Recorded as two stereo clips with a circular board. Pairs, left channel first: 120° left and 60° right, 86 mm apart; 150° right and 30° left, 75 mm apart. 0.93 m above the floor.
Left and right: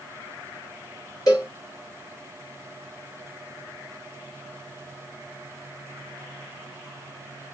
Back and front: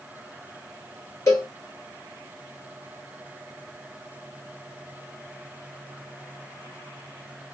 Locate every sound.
1.3 s a cowbell: 165° left, 3.5 m